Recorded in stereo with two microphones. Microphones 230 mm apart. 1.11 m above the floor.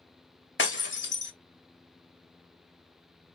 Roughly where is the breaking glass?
Left.